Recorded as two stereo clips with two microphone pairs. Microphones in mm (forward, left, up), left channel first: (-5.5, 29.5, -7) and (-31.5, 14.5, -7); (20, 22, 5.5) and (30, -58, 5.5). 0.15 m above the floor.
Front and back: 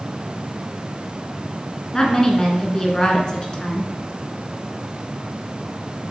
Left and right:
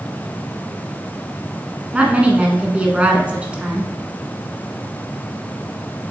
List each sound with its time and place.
1.9 s a woman speaking: 15° right, 1.4 m